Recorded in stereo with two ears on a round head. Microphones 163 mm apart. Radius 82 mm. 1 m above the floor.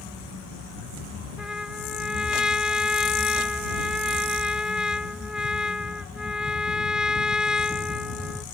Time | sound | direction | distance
1.4 | a trumpet | 5° right (ahead or behind) | ?